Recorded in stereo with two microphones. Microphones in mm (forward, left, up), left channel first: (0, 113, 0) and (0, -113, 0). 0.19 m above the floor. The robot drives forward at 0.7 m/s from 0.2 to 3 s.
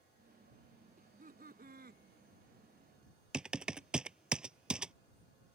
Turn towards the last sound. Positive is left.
turn(degrees=-5)  # may be behind; listen again after turning